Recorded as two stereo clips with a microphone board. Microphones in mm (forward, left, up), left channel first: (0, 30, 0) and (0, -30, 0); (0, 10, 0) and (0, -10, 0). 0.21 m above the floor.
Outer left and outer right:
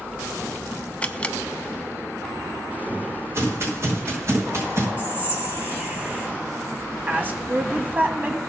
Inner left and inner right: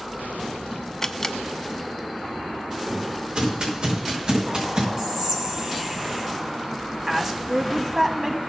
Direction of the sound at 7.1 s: 30° right (ahead or behind).